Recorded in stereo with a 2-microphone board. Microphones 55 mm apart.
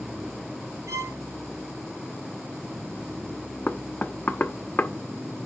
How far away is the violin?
About 3 m.